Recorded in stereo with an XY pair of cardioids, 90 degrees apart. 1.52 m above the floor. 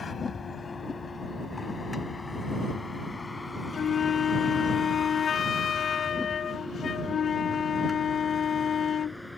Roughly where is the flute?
Ahead left.